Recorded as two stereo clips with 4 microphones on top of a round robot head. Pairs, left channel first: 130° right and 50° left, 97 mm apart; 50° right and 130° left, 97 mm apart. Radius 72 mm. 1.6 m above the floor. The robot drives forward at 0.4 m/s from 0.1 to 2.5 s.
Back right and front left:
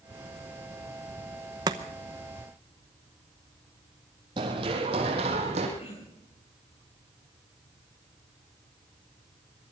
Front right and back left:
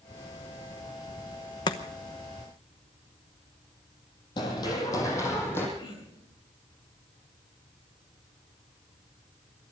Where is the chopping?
Straight ahead, 0.9 m.